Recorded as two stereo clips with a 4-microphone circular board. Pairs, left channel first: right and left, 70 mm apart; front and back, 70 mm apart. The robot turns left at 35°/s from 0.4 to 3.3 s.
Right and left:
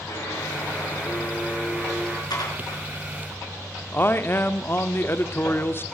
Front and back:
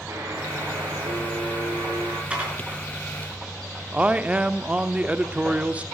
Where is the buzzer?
135° right, 3.5 m; by 2.2 s 160° left, 3.5 m.